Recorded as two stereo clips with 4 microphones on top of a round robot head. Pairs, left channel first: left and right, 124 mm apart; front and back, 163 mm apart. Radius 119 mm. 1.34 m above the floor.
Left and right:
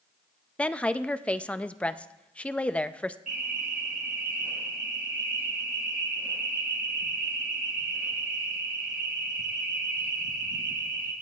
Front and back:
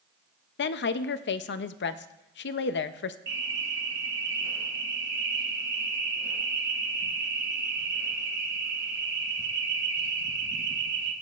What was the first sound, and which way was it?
A woman speaking, 10° left.